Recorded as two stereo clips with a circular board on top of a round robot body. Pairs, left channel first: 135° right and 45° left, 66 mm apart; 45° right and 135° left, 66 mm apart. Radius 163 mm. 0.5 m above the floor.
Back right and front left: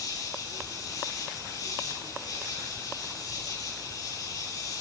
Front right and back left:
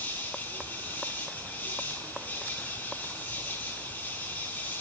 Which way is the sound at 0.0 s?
105° right.